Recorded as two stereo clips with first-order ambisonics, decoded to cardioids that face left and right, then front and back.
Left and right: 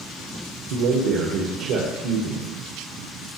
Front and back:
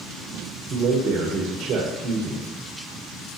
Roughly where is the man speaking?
Behind right.